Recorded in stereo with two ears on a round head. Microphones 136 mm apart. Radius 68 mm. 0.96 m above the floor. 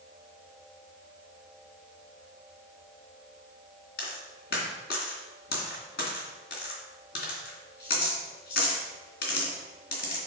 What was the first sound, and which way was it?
A dropped coin, 75° left (ahead or behind).